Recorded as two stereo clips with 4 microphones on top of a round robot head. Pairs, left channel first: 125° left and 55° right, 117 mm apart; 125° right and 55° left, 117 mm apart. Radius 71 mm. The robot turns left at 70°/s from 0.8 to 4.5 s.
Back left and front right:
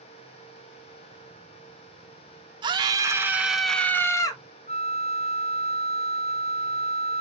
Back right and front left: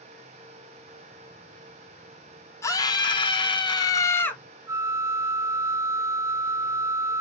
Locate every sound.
2.6 s a scream: 75° right, 1.2 m; by 4.4 s 160° left, 1.2 m
4.7 s a flute: 120° left, 0.6 m